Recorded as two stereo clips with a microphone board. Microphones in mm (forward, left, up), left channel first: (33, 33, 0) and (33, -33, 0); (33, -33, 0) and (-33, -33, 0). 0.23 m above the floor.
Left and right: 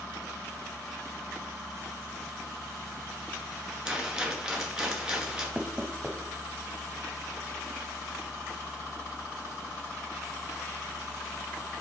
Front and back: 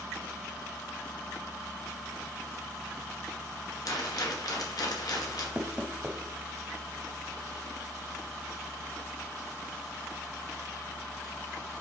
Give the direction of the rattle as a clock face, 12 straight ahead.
12 o'clock.